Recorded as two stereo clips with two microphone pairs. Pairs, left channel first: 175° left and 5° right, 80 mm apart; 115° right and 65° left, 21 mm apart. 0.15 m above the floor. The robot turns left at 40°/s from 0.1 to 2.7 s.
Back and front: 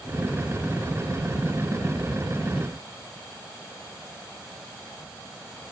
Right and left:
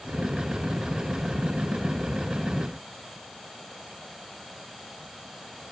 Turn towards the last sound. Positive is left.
No sound to turn to.